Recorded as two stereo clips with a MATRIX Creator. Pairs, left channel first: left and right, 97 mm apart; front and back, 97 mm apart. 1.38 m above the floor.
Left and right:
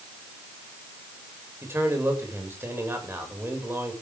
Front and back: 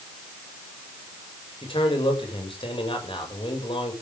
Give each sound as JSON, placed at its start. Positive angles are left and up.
{"t": 1.6, "sound": "a man speaking", "azimuth_deg": -25, "distance_m": 7.5}